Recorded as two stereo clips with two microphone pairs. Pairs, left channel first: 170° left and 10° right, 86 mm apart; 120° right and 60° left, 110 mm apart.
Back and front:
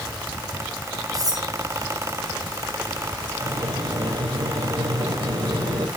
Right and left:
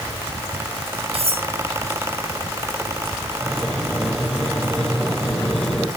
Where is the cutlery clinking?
35° left, 3.5 m.